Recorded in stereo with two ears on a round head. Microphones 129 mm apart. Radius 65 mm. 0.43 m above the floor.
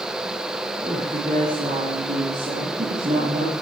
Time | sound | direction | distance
0.8 | a woman speaking | 50° right (ahead or behind) | 10 m